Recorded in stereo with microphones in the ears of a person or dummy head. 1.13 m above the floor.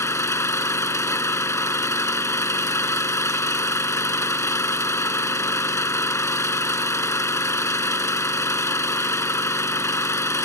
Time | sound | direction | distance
0.0 | an engine running | 25° left (ahead or behind) | ?